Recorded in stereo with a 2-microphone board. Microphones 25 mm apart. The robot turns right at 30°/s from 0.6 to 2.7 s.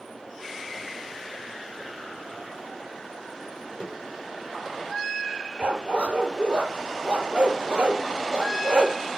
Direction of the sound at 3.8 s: 90° left.